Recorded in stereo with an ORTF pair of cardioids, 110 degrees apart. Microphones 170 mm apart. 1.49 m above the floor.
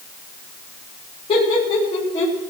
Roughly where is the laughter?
Ahead left.